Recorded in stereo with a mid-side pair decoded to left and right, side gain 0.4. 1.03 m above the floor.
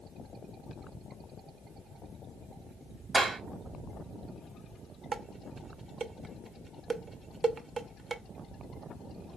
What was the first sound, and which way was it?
A clap, 50° right.